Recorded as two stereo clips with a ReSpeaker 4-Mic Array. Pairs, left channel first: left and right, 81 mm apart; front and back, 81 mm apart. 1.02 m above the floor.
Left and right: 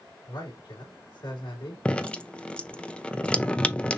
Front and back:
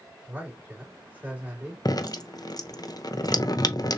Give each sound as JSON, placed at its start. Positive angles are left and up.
{"t": 0.3, "sound": "a man speaking", "azimuth_deg": 115, "distance_m": 3.0}
{"t": 1.9, "sound": "dripping", "azimuth_deg": 20, "distance_m": 0.5}